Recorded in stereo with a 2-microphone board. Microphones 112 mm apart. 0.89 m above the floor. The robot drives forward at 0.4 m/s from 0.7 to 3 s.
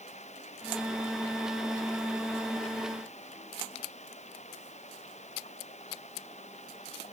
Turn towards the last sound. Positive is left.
turn(degrees=85)